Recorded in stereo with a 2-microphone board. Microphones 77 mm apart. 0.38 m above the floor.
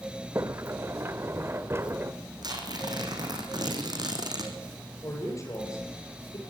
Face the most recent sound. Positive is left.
turn(degrees=40)  # may be behind; listen again after turning